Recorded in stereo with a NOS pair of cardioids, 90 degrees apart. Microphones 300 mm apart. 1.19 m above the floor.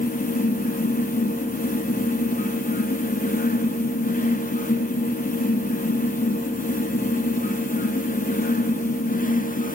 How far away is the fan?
About 0.8 m.